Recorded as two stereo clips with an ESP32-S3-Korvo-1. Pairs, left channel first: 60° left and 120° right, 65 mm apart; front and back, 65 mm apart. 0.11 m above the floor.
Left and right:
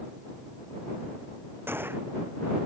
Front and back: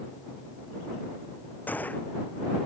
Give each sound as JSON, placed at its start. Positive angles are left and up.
{"t": 1.7, "sound": "a gunshot", "azimuth_deg": -65}